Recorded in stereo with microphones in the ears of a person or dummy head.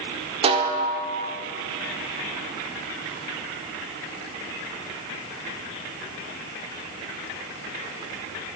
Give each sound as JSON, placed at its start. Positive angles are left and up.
{"t": 0.4, "sound": "a snare drum", "side_deg": -30, "distance_m": 0.5}